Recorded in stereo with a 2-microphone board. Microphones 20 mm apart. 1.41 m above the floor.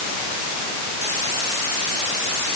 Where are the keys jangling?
No keys jangling in this recording.